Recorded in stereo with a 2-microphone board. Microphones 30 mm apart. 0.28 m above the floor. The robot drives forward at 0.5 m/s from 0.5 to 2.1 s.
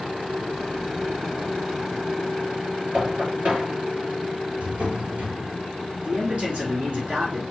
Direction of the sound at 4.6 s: 55° right (ahead or behind).